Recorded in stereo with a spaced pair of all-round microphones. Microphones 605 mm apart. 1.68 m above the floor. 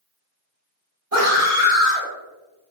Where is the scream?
80° right, 1.5 m.